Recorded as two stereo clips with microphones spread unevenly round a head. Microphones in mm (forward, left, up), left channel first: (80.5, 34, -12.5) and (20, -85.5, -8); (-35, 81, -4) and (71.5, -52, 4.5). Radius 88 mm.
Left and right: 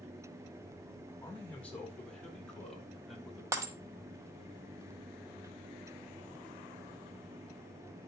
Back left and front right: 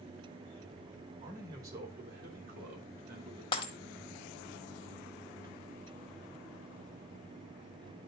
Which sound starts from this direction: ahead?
A man speaking, at 1.2 s.